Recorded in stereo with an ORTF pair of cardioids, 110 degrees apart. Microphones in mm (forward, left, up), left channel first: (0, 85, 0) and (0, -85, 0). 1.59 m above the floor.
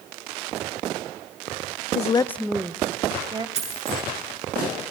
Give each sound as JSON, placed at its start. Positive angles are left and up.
{"t": 1.9, "sound": "a woman speaking", "azimuth_deg": 50, "distance_m": 0.6}
{"t": 3.5, "sound": "a dropped coin", "azimuth_deg": -40, "distance_m": 8.0}